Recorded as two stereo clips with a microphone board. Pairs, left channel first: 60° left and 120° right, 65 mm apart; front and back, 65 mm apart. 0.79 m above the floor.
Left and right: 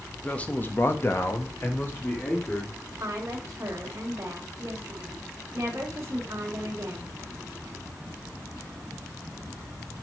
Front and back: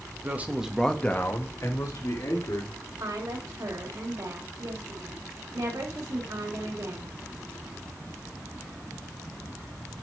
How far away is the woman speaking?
About 3.5 m.